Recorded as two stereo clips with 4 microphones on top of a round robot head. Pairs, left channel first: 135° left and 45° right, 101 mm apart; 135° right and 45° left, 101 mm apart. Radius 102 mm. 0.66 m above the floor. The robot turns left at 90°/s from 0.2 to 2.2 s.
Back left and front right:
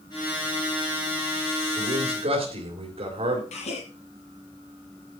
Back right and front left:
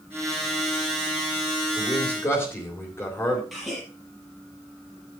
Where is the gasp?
135° left, 5 m.